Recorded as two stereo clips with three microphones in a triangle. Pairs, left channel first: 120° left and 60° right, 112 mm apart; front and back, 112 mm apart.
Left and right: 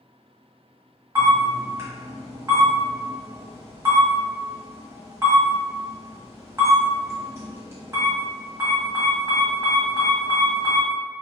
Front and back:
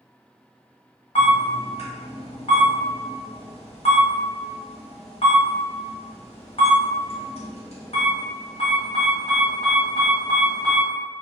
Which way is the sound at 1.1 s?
Straight ahead.